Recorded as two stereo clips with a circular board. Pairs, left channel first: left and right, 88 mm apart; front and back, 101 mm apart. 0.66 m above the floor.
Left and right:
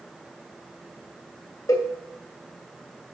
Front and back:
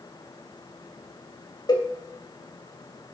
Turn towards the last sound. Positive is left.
turn(degrees=45)